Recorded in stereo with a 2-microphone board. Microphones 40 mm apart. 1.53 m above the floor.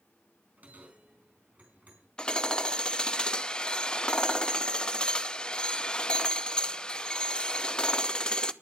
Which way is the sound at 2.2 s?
20° left (ahead or behind).